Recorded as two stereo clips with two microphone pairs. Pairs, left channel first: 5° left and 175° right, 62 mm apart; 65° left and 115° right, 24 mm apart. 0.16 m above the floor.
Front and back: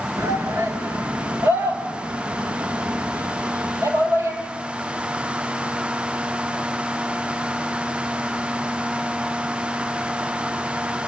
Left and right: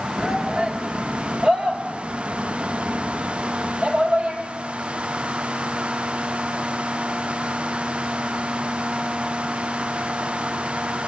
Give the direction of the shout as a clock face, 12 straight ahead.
5 o'clock.